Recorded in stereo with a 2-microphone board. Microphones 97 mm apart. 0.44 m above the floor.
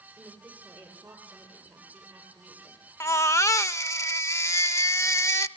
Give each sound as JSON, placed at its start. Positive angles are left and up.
{"t": 0.2, "sound": "a woman speaking", "side_deg": -10, "distance_m": 8.5}
{"t": 3.0, "sound": "a baby crying", "side_deg": 30, "distance_m": 0.6}